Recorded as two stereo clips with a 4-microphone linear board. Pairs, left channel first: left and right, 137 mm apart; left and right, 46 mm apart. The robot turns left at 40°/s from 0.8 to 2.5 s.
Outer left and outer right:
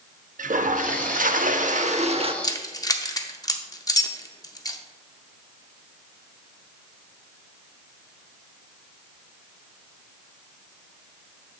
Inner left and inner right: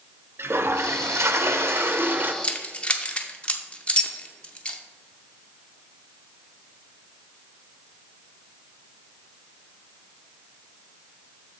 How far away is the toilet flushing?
About 0.5 m.